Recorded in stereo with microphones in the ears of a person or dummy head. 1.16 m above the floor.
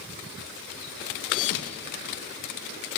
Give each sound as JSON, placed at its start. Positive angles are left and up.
{"t": 1.3, "sound": "a thud", "side_deg": 70, "distance_m": 3.5}